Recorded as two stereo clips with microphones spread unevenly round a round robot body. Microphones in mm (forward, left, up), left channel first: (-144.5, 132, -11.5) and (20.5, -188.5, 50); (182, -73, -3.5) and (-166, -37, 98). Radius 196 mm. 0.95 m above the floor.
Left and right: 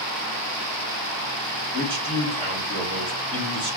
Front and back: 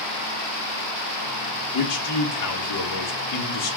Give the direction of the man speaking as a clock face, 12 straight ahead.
11 o'clock.